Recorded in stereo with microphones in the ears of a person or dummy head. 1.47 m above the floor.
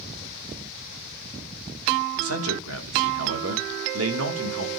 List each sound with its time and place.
2.2 s a man speaking: 85° right, 3 m